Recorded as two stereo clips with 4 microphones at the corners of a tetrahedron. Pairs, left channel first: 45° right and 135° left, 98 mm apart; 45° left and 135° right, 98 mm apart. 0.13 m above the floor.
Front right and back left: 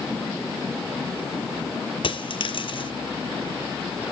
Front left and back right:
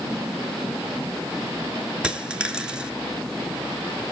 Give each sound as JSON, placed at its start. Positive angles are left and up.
{"t": 2.0, "sound": "a dropped coin", "azimuth_deg": -55, "distance_m": 1.1}